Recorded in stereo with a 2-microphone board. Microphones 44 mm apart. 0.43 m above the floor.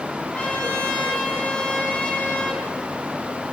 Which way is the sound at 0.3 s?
30° left (ahead or behind).